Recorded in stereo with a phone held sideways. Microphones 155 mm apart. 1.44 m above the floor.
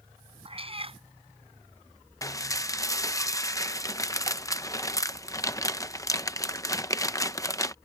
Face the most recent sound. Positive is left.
turn(degrees=20)  # may be behind; listen again after turning